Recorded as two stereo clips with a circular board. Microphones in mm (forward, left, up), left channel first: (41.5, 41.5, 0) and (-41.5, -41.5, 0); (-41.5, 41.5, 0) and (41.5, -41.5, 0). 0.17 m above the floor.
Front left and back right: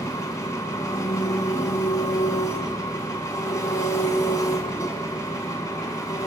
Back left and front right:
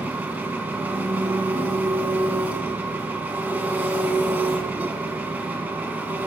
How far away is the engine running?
About 1.1 m.